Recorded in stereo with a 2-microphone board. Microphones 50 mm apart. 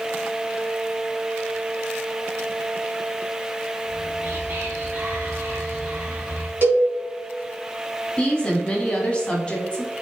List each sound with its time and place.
3.9 s whispering: 40° right (ahead or behind), 1.4 m
6.6 s a cowbell: 45° right (ahead or behind), 1.7 m
8.2 s a woman speaking: 20° left (ahead or behind), 1.1 m